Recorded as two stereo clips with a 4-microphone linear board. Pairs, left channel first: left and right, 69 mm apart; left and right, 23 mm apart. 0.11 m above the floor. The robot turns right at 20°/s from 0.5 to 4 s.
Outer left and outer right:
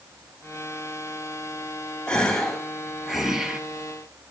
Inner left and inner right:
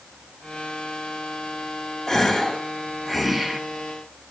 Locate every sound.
2.1 s a gasp: 165° left, 0.5 m; by 3.6 s 165° right, 0.5 m